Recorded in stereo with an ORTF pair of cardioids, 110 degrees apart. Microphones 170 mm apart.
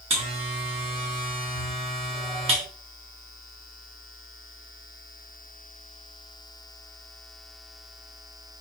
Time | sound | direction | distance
0.1 | a buzzer | 35° right | 1.3 m